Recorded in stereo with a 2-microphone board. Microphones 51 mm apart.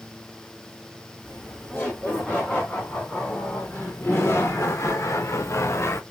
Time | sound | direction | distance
1.2 | laughter | 20° left (ahead or behind) | 3.5 m